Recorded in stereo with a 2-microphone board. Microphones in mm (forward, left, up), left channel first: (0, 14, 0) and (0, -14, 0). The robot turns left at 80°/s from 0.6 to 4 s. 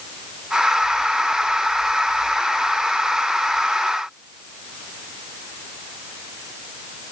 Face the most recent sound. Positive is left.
No sound to turn to.